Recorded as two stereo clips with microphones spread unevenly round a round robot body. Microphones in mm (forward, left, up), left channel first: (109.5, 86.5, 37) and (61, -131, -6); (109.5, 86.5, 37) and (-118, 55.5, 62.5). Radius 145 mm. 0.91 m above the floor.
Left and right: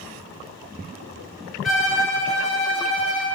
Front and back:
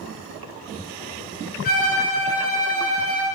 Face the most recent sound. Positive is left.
turn(degrees=5)